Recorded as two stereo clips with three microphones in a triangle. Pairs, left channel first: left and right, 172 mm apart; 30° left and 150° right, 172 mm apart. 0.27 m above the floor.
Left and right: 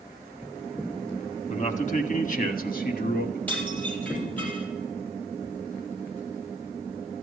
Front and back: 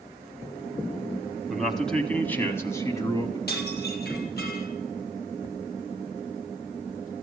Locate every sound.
1.5 s a man speaking: 125° left, 1.6 m; by 3.4 s 95° left, 2 m
3.5 s dishes clattering: 10° left, 4.5 m